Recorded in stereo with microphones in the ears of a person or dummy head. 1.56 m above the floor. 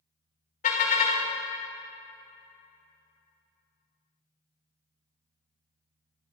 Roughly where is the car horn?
Left.